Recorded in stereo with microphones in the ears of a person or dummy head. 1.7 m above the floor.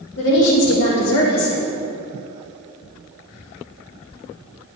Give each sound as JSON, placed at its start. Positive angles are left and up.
{"t": 0.2, "sound": "a woman speaking", "side_deg": 70, "distance_m": 2.5}